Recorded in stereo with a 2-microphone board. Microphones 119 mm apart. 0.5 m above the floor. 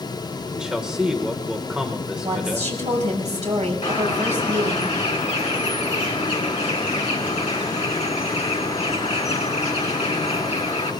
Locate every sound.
0.5 s a man speaking: 5° right (ahead or behind), 1.3 m
2.2 s a woman speaking: 70° right (ahead or behind), 5 m
3.8 s a bird: 55° left (ahead or behind), 3 m